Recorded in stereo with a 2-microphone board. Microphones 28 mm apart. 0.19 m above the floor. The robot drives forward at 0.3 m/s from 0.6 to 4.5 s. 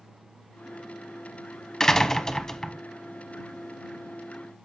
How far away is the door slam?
About 1.0 m.